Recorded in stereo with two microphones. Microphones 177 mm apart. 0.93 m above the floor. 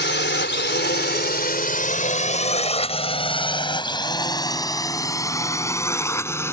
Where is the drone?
75° left (ahead or behind); by 6.5 s 15° left (ahead or behind).